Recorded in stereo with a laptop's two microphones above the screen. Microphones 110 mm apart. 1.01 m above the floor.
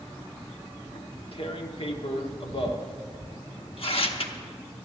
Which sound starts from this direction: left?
Tearing paper, at 0.9 s.